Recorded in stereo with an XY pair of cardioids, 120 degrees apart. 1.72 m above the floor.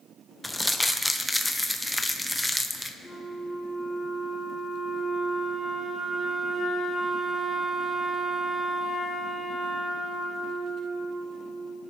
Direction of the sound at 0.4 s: 5° left.